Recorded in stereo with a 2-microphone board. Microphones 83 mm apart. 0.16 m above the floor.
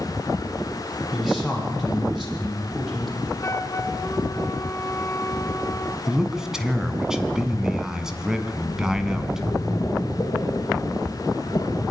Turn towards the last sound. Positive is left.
turn(degrees=50)  # may be behind; listen again after turning